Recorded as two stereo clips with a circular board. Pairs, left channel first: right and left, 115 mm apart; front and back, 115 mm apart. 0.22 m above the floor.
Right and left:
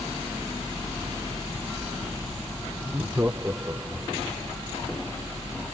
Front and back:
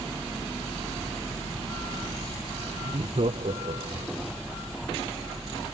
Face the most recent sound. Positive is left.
turn(degrees=160)